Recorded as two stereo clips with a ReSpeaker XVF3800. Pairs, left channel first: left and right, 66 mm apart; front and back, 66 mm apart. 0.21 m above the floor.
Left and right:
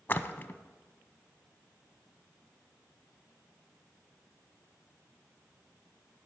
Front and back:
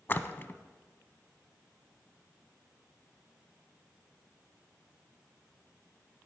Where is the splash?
40° left, 0.5 m.